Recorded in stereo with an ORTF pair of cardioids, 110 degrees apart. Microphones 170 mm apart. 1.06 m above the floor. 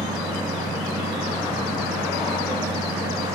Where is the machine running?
20° right, 1.2 m.